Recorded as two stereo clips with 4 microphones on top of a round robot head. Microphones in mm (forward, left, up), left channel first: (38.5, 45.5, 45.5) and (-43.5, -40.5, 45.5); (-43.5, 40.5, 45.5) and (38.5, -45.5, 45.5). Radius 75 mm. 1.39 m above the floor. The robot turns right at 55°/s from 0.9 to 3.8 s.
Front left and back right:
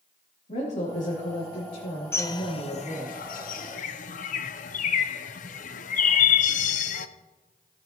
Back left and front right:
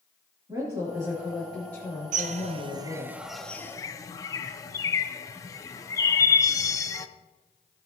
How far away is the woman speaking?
About 3 m.